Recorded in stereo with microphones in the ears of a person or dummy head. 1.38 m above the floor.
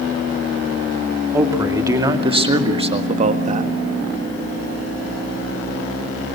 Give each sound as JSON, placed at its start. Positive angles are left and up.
{"t": 1.3, "sound": "a man speaking", "side_deg": -20, "distance_m": 2.5}